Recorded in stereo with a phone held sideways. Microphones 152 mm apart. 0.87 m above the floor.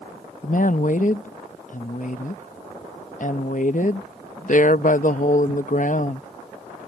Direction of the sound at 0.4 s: 55° left (ahead or behind).